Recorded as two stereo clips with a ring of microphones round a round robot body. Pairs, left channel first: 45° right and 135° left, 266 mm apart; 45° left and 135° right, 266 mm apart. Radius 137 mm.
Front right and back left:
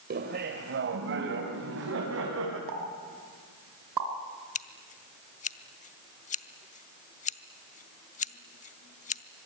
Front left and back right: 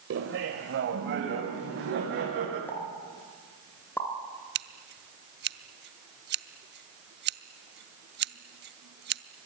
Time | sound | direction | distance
0.1 | laughter | 175° right | 2 m
2.7 | a pop | 130° left | 3 m
4.5 | scissors | 100° right | 0.7 m